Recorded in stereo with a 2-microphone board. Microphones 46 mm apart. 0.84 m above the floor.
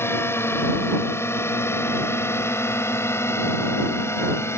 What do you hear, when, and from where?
0.0 s a drone: 65° left (ahead or behind); by 4.6 s 75° left (ahead or behind)